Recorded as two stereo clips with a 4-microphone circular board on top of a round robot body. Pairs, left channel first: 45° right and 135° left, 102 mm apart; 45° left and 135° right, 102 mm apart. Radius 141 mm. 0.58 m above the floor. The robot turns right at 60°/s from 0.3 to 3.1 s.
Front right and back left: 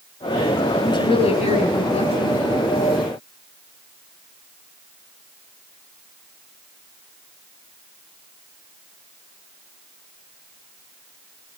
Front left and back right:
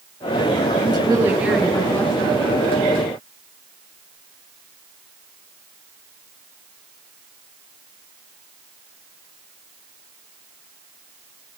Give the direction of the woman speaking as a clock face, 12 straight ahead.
3 o'clock.